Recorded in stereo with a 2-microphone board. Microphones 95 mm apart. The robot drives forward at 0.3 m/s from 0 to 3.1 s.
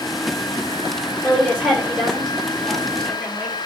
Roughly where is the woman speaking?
Centre.